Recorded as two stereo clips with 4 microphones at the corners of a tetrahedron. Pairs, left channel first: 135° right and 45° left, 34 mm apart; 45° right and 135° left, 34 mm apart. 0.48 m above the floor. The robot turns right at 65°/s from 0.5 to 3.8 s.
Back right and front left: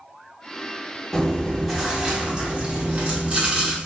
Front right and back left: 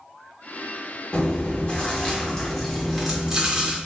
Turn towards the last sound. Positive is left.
turn(degrees=100)